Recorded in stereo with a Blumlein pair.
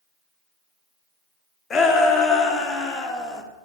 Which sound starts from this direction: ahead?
A shout, at 1.7 s.